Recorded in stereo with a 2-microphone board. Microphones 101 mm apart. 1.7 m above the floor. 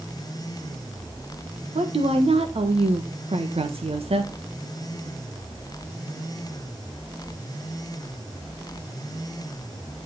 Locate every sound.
1.8 s a woman speaking: 75° right (ahead or behind), 1.4 m